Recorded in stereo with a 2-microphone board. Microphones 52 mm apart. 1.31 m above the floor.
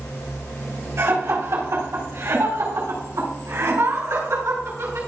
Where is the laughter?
70° right (ahead or behind), 4.5 m; by 5.0 s 85° right, 9 m.